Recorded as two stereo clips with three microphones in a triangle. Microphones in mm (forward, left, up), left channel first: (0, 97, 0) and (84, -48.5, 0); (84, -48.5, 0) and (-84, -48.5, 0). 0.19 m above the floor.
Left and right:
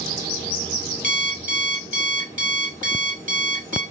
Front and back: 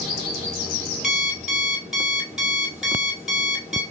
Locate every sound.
1.0 s an alarm clock: 90° right, 1.9 m